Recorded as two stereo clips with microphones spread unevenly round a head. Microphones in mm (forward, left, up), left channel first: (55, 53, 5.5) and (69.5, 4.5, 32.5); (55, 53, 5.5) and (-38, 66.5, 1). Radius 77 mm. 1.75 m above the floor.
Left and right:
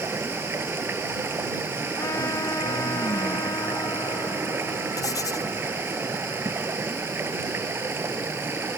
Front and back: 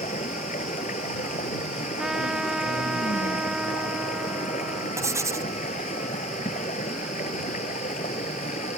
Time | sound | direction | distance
0.0 | running water | 45° right | ?
2.0 | a trumpet | 85° left | ?
5.0 | writing | 110° left | ?